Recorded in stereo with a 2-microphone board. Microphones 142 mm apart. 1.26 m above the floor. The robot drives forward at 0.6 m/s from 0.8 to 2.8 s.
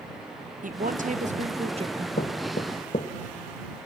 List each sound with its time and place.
0.6 s a woman speaking: 70° right (ahead or behind), 1.0 m; by 2.1 s 40° right (ahead or behind), 1.4 m
2.2 s knocking: 80° left, 1.1 m; by 3.1 s 65° left (ahead or behind), 1.2 m